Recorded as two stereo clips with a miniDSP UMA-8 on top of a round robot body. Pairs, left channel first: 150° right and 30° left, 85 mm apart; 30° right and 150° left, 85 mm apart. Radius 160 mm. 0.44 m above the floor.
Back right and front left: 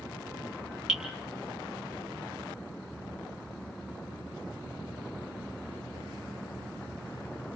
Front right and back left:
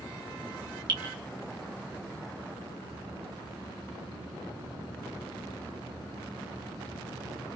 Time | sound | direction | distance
0.9 | dripping | 115° left | 3.5 m